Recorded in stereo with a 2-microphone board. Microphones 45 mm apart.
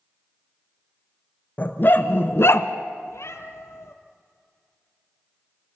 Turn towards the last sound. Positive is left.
turn(degrees=75)  # may be behind; listen again after turning